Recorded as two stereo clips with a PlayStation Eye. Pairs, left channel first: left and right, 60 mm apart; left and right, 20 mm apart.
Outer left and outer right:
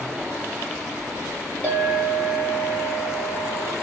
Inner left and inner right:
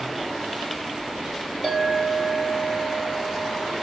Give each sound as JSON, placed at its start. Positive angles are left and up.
{"t": 1.6, "sound": "a clink", "side_deg": -30, "distance_m": 2.0}